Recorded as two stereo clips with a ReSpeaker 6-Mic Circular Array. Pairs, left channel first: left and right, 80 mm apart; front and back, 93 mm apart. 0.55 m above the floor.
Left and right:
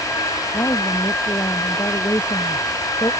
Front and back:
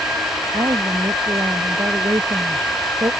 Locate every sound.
0.5 s a woman speaking: 135° left